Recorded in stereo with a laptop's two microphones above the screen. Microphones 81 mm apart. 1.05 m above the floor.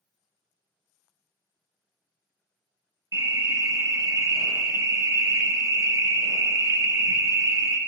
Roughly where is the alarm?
Right.